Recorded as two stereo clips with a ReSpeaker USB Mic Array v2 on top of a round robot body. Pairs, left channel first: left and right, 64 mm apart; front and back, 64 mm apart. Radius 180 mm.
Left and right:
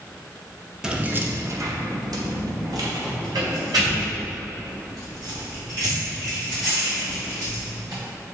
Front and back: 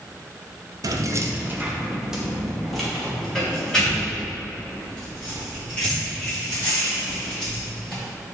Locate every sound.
0.8 s keys jangling: 170° right, 1.0 m; by 8.0 s 70° right, 7.5 m